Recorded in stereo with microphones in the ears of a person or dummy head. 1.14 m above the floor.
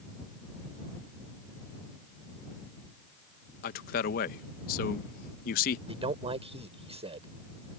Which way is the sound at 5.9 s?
35° right (ahead or behind).